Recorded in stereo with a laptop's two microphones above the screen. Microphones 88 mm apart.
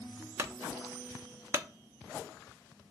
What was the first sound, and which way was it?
A clunk, 30° right (ahead or behind).